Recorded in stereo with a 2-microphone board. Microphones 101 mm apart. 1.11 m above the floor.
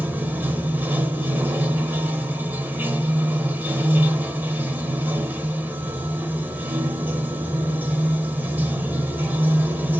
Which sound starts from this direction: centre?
Running water, at 0.0 s.